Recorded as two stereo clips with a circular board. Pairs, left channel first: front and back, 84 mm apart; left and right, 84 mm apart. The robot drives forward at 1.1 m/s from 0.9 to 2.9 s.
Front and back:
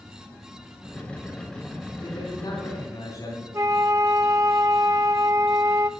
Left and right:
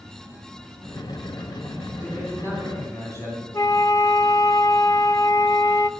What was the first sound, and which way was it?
A man speaking, 30° left.